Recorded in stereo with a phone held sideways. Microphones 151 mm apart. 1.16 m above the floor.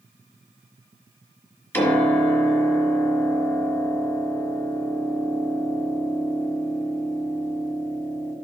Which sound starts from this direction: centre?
A piano, at 1.7 s.